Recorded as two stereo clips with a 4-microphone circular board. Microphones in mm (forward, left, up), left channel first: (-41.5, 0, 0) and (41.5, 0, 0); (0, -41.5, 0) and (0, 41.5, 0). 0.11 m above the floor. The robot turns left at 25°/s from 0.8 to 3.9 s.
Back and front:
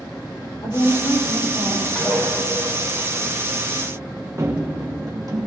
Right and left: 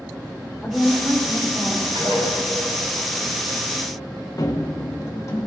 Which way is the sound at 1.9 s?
100° left.